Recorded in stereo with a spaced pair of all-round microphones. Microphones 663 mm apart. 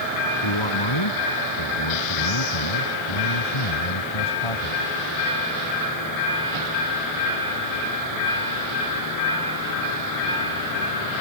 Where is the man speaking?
40° left (ahead or behind); by 4.8 s 50° left (ahead or behind).